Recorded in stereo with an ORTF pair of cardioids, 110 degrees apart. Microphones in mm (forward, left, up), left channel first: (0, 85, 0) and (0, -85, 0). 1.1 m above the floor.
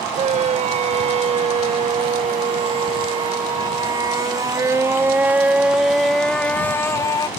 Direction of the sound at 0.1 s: 45° right.